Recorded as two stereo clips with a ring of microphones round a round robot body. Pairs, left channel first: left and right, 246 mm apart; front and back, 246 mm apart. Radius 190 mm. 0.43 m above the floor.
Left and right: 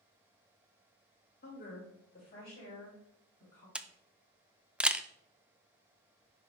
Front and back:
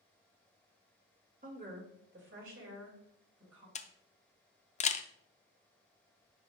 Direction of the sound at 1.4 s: 130° left.